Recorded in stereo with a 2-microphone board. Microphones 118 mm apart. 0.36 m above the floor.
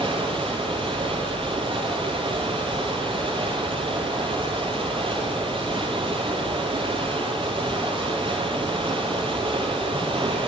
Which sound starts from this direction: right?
Running water, at 0.0 s.